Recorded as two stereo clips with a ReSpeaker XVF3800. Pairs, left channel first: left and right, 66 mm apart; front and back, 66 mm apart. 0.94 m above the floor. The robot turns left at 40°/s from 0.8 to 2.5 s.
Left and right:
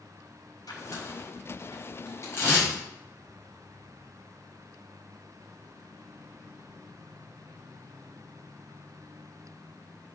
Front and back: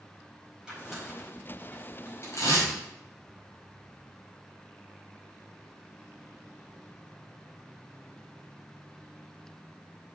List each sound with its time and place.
0.7 s tearing paper: 100° left, 4.5 m; by 2.7 s 35° left, 4.5 m